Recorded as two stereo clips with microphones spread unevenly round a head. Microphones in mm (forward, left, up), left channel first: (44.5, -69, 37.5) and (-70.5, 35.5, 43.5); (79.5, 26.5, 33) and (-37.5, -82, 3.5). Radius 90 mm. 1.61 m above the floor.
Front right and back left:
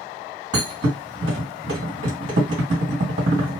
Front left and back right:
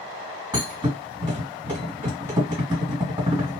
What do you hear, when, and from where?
0.5 s a thud: 150° left, 1.9 m